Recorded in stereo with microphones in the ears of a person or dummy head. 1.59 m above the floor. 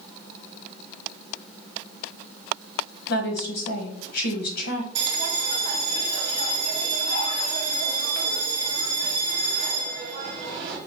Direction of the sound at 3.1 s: 70° left (ahead or behind).